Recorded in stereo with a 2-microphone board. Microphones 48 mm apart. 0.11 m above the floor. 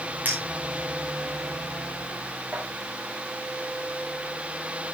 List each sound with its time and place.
0.2 s a clink: 30° right (ahead or behind), 7 m